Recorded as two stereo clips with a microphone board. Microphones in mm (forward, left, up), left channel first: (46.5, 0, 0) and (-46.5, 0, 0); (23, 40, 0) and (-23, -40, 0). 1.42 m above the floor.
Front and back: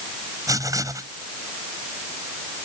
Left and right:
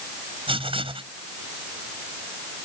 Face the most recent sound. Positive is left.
turn(degrees=-125)